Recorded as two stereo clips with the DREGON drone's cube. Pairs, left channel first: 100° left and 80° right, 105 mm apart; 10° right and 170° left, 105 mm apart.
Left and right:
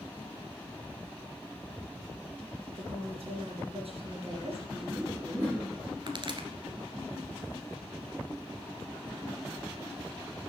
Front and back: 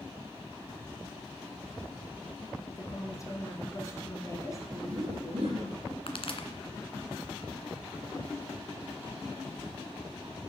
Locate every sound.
2.7 s a woman speaking: 70° right, 3.5 m
4.7 s laughter: 155° right, 6.5 m
6.1 s a pop: 40° right, 1.7 m